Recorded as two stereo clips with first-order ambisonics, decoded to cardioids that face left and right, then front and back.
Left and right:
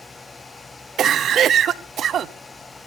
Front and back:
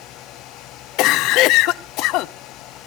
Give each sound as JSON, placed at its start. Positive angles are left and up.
{"t": 1.0, "sound": "a cough", "azimuth_deg": -35, "distance_m": 0.7}